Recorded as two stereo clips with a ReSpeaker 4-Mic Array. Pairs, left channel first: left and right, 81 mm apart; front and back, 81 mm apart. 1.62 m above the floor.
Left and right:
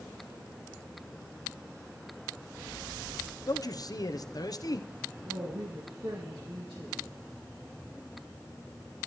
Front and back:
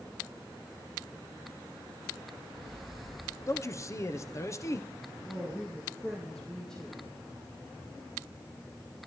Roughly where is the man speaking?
Ahead left.